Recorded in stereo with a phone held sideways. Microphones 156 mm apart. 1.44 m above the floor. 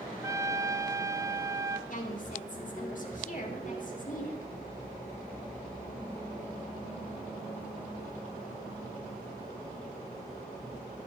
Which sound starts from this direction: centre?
A trumpet, at 0.2 s.